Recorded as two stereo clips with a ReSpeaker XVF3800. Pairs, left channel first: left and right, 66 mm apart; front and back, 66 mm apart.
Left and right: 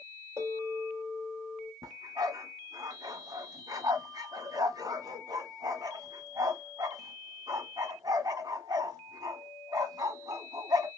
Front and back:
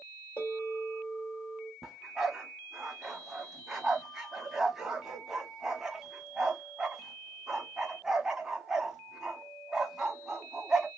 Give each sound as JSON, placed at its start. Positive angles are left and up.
{"t": 0.4, "sound": "a bell", "azimuth_deg": -60, "distance_m": 2.5}
{"t": 1.8, "sound": "a dog barking", "azimuth_deg": -100, "distance_m": 1.1}